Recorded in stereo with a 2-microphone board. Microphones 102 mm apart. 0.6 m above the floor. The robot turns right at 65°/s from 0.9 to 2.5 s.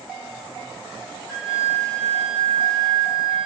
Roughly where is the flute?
Behind.